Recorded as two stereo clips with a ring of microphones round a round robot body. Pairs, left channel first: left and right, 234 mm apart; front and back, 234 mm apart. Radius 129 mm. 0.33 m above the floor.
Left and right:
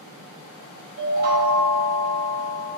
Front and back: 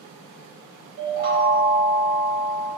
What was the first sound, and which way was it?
A chime, 135° right.